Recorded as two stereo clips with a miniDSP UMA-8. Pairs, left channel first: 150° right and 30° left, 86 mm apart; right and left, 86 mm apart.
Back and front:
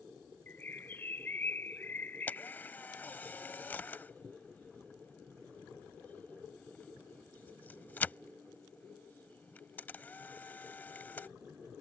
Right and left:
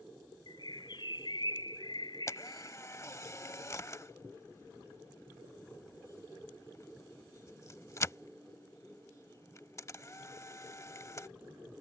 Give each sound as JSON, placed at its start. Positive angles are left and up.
{"t": 0.5, "sound": "a bird", "azimuth_deg": -90}
{"t": 2.3, "sound": "a camera shutter", "azimuth_deg": -100}